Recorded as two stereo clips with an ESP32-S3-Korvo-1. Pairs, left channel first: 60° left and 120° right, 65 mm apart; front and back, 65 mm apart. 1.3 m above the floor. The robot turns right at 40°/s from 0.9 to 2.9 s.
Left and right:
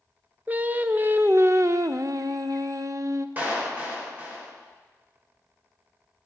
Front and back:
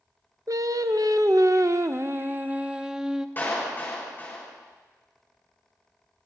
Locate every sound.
0.5 s singing: straight behind, 0.5 m; by 3.3 s 100° right, 0.5 m
3.4 s a clap: 55° right, 4 m